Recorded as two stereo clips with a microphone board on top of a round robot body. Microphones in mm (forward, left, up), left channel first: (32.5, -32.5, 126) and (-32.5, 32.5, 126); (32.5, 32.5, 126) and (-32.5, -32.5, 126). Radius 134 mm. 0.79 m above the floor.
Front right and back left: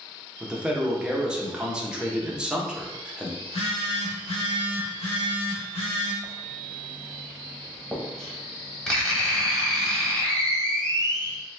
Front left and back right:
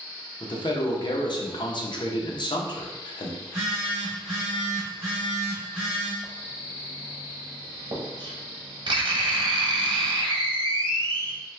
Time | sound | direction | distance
0.4 | a man speaking | 55° left | 0.8 m
3.4 | a phone buzzing | 45° right | 0.5 m
6.2 | writing | 130° right | 1.0 m